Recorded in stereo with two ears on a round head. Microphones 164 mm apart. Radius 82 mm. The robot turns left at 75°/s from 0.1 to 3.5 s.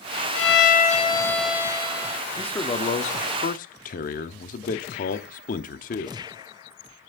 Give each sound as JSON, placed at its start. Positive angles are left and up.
{"t": 0.3, "sound": "a violin", "azimuth_deg": 85, "distance_m": 1.8}
{"t": 2.4, "sound": "a man speaking", "azimuth_deg": 175, "distance_m": 1.0}